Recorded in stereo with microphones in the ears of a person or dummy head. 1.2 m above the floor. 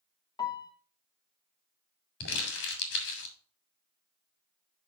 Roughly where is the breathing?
No breathing in this recording.